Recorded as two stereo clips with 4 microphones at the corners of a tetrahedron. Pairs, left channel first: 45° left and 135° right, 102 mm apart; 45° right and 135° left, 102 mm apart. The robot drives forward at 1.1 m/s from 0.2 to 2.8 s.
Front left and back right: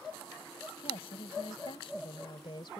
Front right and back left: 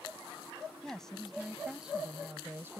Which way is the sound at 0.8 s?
35° left.